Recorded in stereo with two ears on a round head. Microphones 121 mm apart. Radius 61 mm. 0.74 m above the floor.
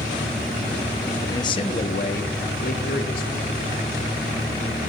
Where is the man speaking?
20° left (ahead or behind), 0.9 m; by 3.6 s 70° left (ahead or behind), 3 m.